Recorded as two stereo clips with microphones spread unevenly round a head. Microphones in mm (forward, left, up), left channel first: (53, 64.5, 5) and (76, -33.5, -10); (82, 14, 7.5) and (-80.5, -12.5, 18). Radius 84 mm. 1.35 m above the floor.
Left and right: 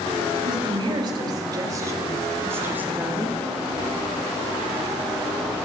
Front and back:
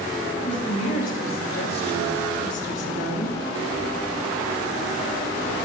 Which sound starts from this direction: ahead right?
A woman speaking, at 0.3 s.